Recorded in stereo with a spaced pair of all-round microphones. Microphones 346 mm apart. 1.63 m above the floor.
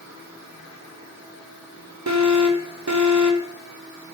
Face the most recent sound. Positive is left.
turn(degrees=-55)  # may be behind; listen again after turning